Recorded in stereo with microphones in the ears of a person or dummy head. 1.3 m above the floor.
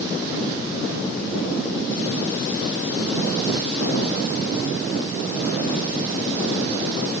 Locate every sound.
Only background noise.